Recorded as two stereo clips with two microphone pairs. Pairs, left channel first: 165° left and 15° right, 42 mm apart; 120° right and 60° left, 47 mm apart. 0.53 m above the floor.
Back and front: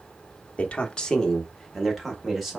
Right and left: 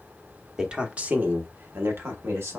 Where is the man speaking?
130° left, 0.8 m; by 2.6 s 70° left, 1.5 m.